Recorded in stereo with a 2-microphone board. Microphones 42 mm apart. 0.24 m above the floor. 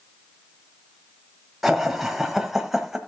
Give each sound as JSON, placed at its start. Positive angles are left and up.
{"t": 1.6, "sound": "laughter", "side_deg": -5, "distance_m": 1.2}